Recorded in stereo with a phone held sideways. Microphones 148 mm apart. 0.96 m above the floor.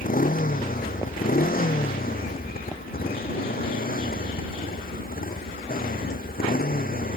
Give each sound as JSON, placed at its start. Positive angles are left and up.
{"t": 0.0, "sound": "a motorcycle", "side_deg": 70}